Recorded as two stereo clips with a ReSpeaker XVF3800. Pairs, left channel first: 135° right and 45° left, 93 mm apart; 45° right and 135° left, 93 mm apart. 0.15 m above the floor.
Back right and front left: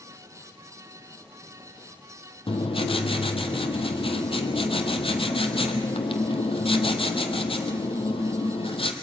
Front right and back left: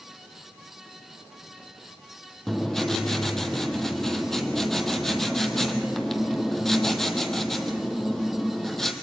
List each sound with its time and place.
2.5 s writing: 130° right, 1.3 m